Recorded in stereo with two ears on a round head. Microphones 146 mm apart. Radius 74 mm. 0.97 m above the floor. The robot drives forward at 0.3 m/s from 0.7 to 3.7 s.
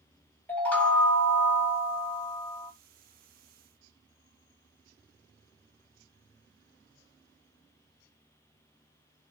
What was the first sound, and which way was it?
A chime, 10° left (ahead or behind).